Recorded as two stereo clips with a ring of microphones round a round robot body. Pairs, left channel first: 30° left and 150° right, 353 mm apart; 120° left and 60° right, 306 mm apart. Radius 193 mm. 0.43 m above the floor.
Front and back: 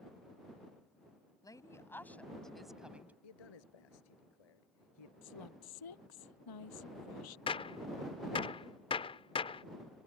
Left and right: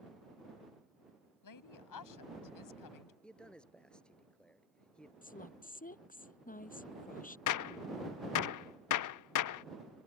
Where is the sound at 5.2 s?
55° left.